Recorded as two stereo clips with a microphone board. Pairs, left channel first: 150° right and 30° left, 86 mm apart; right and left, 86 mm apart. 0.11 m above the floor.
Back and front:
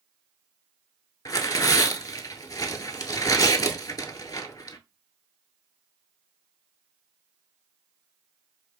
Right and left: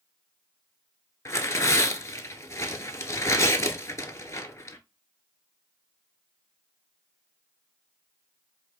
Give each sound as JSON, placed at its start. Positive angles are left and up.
{"t": 1.2, "sound": "tearing paper", "azimuth_deg": -135, "distance_m": 0.6}